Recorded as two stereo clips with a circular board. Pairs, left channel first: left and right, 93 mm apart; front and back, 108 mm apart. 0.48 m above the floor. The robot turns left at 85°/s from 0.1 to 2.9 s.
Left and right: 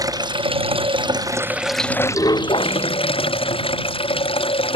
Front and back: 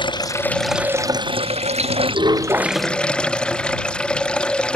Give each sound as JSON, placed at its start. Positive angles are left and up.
{"t": 0.0, "sound": "running water", "azimuth_deg": -40}